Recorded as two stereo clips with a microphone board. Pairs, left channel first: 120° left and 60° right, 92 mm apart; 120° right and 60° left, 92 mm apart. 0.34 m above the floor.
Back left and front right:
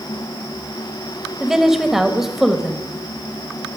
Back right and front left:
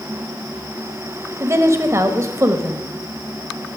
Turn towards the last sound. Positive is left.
turn(degrees=20)